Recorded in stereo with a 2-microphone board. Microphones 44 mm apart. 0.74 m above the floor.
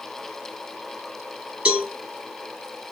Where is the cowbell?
25° right (ahead or behind), 1.6 m.